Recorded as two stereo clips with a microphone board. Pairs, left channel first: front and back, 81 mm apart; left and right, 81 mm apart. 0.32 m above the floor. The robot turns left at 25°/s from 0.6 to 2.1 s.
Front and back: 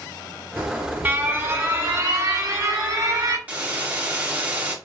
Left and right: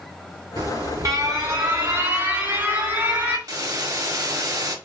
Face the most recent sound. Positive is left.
turn(degrees=-115)